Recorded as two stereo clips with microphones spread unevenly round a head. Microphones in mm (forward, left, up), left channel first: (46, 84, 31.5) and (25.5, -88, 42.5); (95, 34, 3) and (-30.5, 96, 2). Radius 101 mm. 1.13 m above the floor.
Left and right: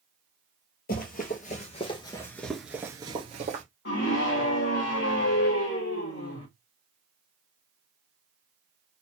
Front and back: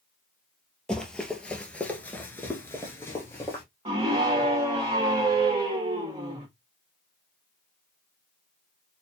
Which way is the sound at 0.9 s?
55° left.